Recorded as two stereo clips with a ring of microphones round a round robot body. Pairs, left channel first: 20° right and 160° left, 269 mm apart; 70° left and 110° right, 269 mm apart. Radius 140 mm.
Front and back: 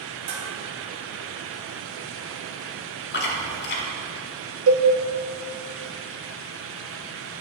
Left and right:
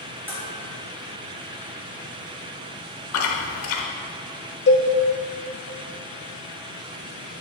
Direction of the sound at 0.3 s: 165° left.